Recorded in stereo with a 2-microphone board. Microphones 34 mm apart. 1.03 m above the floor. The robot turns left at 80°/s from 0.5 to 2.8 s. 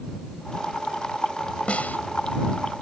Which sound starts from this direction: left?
A snare drum, at 1.7 s.